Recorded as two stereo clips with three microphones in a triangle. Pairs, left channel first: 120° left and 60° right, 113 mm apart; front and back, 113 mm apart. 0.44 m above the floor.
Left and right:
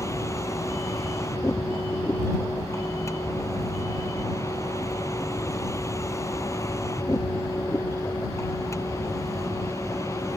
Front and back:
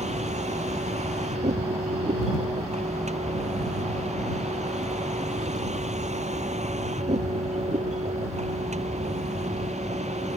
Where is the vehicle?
175° right.